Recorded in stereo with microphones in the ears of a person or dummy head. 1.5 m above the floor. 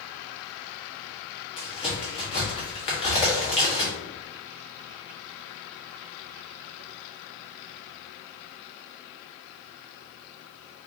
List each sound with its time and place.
1.6 s a crack: 25° left (ahead or behind), 1.3 m